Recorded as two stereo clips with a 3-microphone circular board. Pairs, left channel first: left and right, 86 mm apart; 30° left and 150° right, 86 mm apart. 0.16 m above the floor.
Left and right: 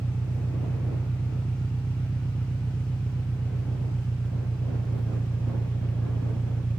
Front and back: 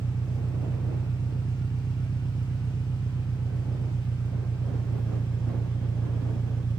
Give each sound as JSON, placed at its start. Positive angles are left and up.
{"t": 0.0, "sound": "an engine running", "azimuth_deg": 15}